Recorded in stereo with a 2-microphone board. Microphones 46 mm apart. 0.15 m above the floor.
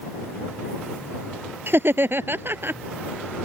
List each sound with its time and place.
1.7 s laughter: 55° right (ahead or behind)